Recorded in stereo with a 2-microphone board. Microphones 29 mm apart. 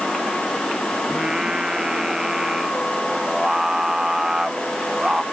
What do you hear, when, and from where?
1.1 s singing: 20° right (ahead or behind)